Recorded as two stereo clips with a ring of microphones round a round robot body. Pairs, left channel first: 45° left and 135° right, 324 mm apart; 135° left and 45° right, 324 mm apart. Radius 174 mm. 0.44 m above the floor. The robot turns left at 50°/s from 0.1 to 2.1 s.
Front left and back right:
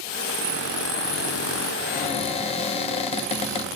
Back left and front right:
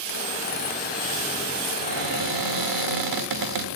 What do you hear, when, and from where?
1.8 s a cupboard door: 10° right, 1.6 m; by 3.6 s 25° right, 1.6 m